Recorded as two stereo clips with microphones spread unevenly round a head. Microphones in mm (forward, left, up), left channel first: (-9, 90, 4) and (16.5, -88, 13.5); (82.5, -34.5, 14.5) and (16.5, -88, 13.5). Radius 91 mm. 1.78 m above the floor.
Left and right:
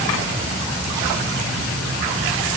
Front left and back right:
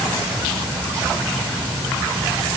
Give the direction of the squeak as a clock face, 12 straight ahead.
No squeak in this recording.